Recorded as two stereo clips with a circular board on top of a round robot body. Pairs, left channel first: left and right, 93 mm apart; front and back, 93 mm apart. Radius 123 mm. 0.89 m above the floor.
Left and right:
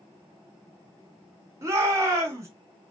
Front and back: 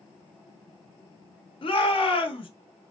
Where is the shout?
30° right, 1.3 m.